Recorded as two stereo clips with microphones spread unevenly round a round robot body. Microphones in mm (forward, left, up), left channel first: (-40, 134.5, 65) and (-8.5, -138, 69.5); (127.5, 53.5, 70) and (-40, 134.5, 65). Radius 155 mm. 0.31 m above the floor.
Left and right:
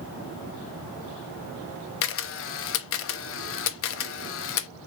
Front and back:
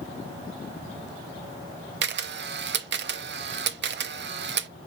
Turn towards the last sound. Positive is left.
turn(degrees=135)